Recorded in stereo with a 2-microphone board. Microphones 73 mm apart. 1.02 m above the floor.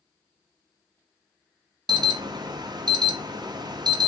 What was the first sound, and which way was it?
An alarm, 70° right (ahead or behind).